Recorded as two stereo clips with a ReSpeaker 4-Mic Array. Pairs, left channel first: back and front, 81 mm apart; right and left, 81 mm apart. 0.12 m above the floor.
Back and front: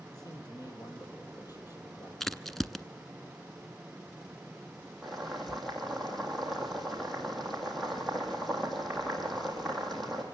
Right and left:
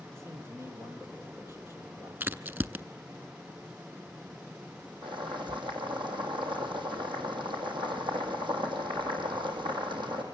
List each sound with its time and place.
0.1 s a man speaking: 145° left, 3.5 m
2.2 s a crack: 100° left, 0.5 m
5.0 s boiling: 90° left, 3 m